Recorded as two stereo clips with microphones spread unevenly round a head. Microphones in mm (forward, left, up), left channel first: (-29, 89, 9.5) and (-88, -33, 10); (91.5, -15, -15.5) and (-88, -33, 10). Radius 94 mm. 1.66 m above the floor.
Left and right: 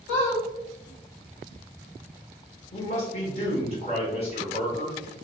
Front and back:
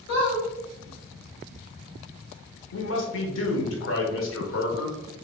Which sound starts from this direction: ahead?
A man speaking, at 2.7 s.